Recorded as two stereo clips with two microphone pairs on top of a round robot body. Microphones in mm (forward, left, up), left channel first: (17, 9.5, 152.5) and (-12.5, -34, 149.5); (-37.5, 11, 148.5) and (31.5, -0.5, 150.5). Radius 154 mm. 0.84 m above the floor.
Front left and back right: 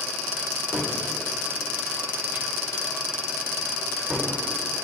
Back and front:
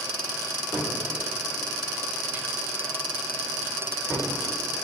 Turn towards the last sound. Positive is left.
turn(degrees=-70)